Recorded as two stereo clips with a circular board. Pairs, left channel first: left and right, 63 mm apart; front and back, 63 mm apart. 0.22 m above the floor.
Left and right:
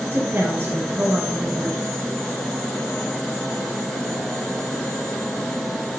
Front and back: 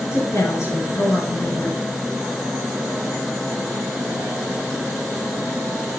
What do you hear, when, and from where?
0.1 s a woman speaking: 40° right, 3.5 m